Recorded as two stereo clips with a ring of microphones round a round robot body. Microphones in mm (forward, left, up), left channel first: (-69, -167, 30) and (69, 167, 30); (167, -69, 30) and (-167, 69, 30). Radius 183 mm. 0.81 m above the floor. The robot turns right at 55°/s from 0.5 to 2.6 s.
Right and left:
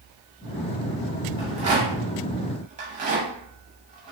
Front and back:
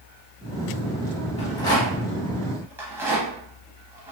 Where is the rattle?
20° left, 0.6 m; by 4.1 s 85° left, 0.6 m.